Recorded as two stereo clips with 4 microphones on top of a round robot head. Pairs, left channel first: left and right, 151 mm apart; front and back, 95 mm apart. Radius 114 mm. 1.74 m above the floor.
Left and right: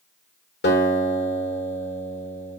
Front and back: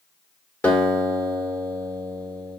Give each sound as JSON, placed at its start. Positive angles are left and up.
{"t": 0.6, "sound": "a guitar", "azimuth_deg": 70, "distance_m": 4.0}